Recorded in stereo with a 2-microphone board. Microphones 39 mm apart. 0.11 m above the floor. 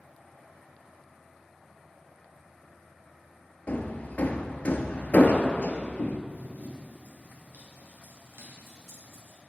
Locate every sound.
3.7 s hammering: 40° left (ahead or behind), 0.8 m
6.3 s running footsteps: 40° right (ahead or behind), 2.5 m; by 9.4 s 85° right, 4.5 m